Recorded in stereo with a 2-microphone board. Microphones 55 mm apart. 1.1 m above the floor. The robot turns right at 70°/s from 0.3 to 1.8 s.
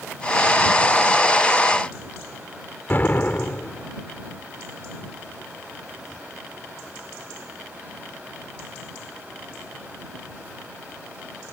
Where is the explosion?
35° left (ahead or behind).